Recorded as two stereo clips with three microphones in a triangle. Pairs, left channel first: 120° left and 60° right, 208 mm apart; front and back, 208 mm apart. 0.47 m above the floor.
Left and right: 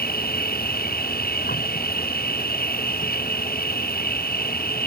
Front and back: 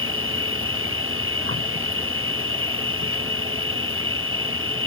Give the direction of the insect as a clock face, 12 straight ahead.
6 o'clock.